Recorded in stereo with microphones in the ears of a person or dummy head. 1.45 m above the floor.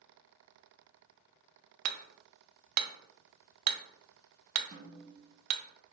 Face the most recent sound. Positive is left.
turn(degrees=-25)  # may be behind; listen again after turning